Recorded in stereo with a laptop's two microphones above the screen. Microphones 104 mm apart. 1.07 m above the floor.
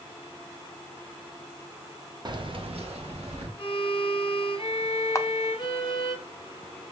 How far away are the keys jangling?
About 0.7 m.